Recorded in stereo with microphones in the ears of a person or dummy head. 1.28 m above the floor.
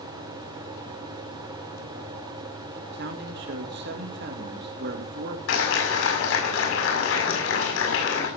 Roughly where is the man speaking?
Right.